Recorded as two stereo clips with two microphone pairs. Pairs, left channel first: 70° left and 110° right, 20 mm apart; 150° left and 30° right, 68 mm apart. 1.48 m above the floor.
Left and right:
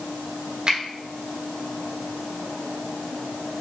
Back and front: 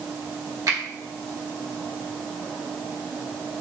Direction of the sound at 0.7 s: 60° right.